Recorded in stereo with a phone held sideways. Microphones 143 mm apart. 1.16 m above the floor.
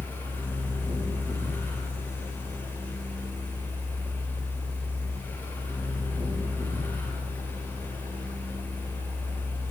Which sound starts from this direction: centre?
A fan, at 0.0 s.